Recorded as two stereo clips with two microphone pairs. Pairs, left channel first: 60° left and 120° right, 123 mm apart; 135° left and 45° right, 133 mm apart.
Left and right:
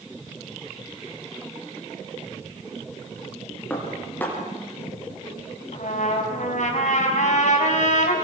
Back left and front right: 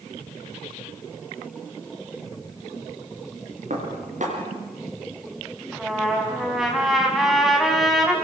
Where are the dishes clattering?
15° right, 5.5 m.